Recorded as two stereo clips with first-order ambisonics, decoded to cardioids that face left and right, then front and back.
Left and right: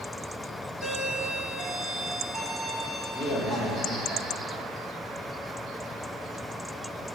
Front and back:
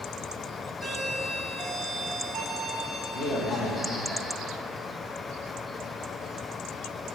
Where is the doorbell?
60° left, 1.0 m.